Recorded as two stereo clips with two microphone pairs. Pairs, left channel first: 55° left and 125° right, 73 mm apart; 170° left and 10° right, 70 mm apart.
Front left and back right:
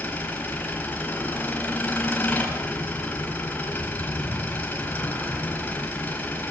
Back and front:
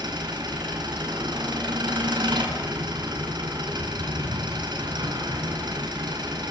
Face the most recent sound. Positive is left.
turn(degrees=-10)